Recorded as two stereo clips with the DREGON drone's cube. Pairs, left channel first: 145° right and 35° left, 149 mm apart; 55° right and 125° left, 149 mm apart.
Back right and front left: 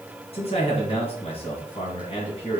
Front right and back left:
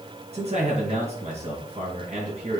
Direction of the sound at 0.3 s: 165° left.